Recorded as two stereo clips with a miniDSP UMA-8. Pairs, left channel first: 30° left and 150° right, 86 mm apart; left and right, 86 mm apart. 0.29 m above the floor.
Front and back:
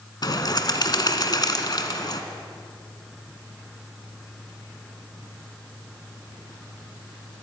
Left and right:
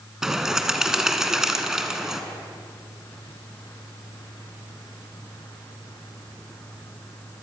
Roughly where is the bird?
Ahead.